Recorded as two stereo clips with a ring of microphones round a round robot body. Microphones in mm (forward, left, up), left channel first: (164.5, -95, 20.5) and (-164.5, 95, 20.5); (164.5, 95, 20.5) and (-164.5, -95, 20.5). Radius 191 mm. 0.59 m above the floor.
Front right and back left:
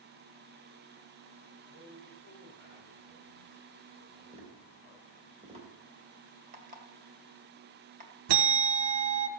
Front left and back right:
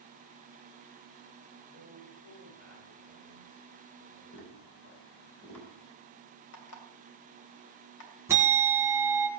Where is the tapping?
80° left, 3.5 m.